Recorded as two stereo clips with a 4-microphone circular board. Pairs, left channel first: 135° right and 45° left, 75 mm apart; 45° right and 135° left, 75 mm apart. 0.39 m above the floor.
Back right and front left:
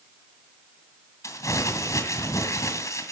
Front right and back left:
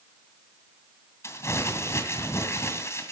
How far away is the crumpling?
About 2 m.